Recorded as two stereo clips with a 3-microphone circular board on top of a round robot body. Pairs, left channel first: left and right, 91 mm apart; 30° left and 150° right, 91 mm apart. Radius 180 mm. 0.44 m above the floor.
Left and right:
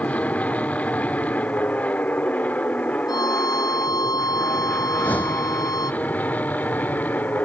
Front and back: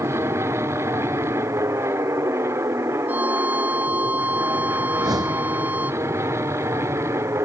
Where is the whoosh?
165° left.